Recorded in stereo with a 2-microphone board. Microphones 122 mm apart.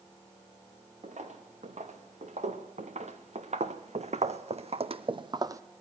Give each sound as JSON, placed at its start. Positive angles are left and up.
{"t": 1.0, "sound": "footsteps", "side_deg": -85, "distance_m": 2.5}